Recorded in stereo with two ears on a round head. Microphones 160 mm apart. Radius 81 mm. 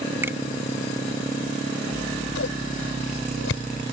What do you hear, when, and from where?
0.2 s a finger snap: 15° right (ahead or behind)
1.9 s scissors: 85° left